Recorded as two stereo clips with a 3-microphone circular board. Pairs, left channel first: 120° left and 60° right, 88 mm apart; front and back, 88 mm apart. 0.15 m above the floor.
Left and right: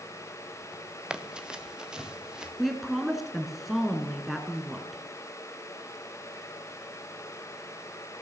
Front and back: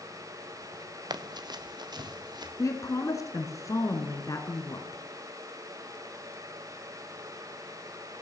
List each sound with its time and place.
1.1 s running footsteps: 140° right, 1.3 m
2.6 s a woman speaking: 30° left, 2.0 m